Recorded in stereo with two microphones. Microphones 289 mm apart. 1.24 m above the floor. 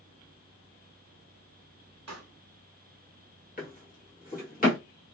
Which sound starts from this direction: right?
A pop, at 2.1 s.